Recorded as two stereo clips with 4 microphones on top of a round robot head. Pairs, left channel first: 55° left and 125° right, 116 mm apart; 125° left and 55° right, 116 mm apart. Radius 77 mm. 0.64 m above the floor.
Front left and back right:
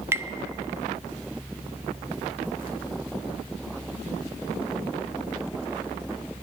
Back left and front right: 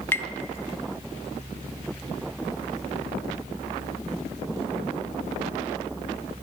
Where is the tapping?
Straight behind, 0.7 m.